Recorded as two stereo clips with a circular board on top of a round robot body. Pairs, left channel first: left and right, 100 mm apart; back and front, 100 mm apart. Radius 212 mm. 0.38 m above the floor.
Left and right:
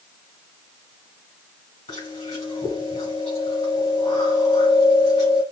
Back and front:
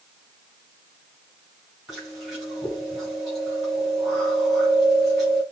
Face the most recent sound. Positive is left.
turn(degrees=85)